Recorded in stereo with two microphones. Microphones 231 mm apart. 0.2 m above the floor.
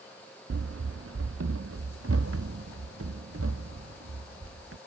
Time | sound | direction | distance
0.5 | running footsteps | 75° right (ahead or behind) | ?